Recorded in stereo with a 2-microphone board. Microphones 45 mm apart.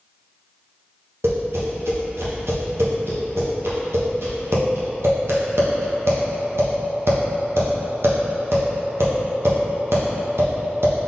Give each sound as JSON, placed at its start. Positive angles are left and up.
{"t": 1.2, "sound": "tapping", "side_deg": -80, "distance_m": 1.1}